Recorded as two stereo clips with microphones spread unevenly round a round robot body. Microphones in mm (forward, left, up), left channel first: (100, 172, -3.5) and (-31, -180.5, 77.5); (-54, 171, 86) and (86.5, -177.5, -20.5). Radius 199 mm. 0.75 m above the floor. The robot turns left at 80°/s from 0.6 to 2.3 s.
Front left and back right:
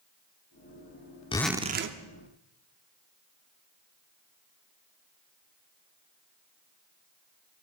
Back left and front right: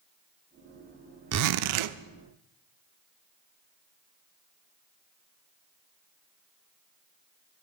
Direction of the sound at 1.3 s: 10° right.